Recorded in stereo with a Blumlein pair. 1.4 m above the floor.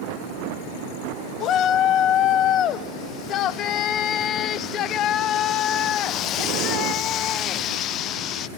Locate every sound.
1.4 s a shout: 30° left, 0.9 m